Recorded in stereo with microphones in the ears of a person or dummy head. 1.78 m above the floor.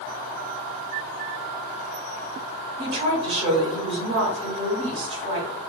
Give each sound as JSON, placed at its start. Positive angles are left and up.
{"t": 2.8, "sound": "a woman speaking", "side_deg": -40, "distance_m": 0.9}